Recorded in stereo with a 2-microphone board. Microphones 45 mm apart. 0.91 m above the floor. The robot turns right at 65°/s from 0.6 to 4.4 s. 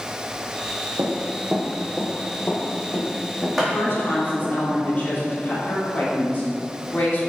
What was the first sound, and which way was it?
Running footsteps, 55° right (ahead or behind).